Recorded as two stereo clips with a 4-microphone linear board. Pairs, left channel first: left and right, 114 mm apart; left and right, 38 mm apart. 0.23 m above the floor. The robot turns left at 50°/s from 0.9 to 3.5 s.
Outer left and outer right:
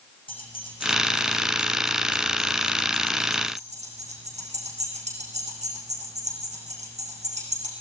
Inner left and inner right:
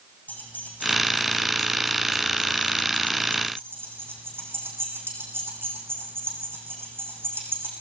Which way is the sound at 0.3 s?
50° left (ahead or behind).